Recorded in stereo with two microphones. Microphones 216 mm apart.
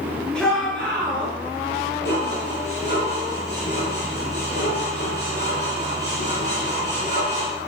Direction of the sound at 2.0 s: 50° left (ahead or behind).